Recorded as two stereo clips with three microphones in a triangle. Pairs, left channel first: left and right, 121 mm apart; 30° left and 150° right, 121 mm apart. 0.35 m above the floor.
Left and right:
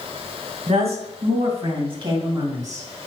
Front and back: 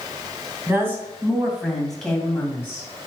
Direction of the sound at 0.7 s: 80° right.